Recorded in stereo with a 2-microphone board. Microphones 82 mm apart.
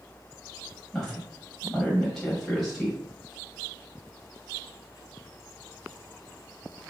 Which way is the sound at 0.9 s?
5° left (ahead or behind).